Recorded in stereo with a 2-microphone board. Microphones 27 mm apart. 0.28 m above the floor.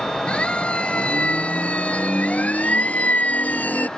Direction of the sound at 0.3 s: 40° left (ahead or behind).